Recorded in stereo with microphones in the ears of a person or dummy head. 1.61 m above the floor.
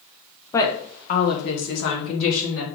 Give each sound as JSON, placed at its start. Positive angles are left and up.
{"t": 0.5, "sound": "a woman speaking", "side_deg": 15, "distance_m": 0.8}